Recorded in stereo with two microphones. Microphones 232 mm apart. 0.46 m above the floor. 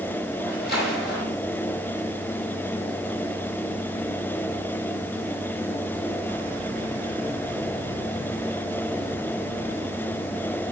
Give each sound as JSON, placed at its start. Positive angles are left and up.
{"t": 0.4, "sound": "a splash", "side_deg": 50, "distance_m": 5.5}